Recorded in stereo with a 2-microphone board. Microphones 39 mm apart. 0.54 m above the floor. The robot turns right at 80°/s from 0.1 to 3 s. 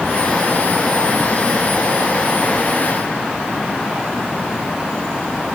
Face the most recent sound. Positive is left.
No sound to turn to.